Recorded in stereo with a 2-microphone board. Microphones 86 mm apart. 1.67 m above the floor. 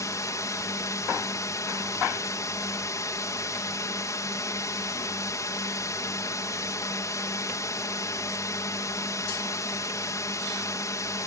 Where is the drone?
40° left (ahead or behind).